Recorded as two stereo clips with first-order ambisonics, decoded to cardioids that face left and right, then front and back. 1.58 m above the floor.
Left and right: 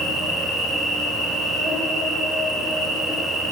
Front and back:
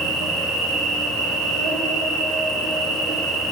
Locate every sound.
0.0 s an insect: 170° left, 1.4 m